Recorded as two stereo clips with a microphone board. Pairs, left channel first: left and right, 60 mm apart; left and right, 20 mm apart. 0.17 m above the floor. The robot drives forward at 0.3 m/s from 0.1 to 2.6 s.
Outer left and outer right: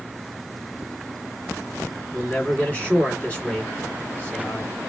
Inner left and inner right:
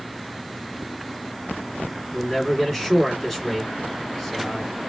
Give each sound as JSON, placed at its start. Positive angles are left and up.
{"t": 2.1, "sound": "a man speaking", "side_deg": 20, "distance_m": 1.4}